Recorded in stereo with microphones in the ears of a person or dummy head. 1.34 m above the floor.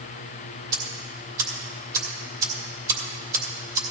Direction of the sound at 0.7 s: 20° right (ahead or behind).